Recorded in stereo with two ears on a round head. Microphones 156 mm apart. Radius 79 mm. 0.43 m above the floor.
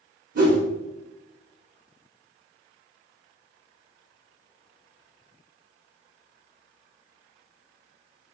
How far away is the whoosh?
About 0.9 m.